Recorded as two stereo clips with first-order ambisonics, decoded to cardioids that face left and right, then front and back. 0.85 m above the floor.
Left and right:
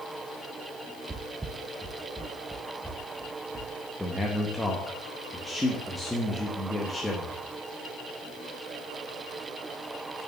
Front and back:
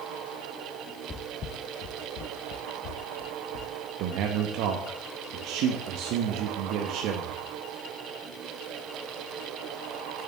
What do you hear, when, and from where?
1.1 s footsteps: 35° right, 0.9 m; by 3.7 s straight ahead, 2.5 m
4.0 s a man speaking: 175° left, 0.9 m